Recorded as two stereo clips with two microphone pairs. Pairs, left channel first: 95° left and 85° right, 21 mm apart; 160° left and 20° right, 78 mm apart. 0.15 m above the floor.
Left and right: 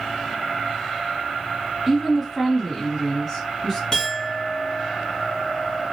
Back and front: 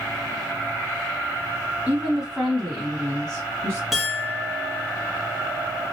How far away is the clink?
About 1.0 m.